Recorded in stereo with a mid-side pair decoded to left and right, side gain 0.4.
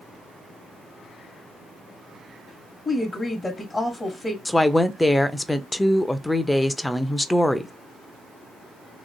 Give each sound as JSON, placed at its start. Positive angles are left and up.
{"t": 2.9, "sound": "a woman speaking", "azimuth_deg": 30, "distance_m": 1.1}
{"t": 4.5, "sound": "a woman speaking", "azimuth_deg": 10, "distance_m": 0.5}